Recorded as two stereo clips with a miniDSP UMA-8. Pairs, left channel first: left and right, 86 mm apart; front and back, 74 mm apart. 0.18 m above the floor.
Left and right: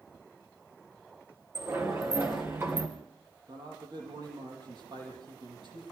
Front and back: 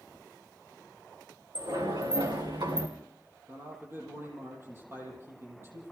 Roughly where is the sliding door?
Behind right.